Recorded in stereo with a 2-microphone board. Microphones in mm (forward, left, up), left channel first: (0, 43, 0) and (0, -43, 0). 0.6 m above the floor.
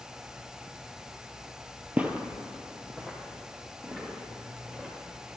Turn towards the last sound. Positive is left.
turn(degrees=-15)  # may be behind; listen again after turning